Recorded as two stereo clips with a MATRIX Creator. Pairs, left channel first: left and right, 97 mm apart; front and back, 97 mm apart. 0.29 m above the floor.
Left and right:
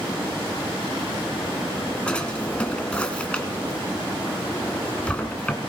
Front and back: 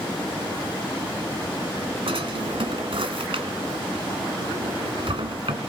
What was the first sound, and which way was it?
A drawer, 170° left.